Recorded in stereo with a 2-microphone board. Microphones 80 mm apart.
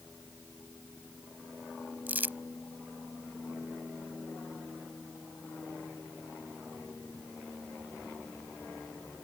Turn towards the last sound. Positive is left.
turn(degrees=-25)  # may be behind; listen again after turning